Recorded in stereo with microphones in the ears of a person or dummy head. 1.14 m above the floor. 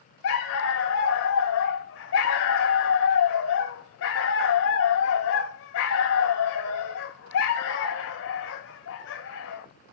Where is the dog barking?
70° left (ahead or behind), 1.9 m.